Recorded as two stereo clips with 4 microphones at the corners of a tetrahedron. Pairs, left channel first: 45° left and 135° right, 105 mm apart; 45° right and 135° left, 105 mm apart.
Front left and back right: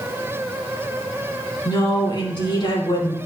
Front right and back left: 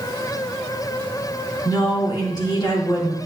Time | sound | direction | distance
1.6 | a woman speaking | straight ahead | 4 m